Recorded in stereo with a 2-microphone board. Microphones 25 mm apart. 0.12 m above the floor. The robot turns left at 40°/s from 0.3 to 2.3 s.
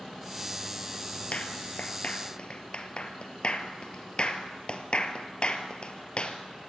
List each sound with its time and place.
1.3 s a clap: 60° left (ahead or behind), 1.8 m; by 6.4 s 45° left (ahead or behind), 1.8 m